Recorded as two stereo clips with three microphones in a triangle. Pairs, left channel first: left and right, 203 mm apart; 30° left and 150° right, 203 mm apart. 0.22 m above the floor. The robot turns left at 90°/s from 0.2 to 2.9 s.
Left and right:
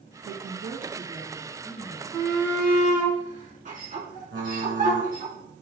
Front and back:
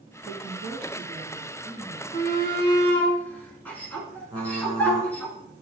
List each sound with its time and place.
0.2 s a woman speaking: 80° right, 2.5 m; by 2.0 s 120° left, 2.5 m
2.1 s a shout: 20° left, 2.5 m; by 5.3 s 50° right, 2.5 m
4.3 s typing on a keyboard: 85° right, 2.5 m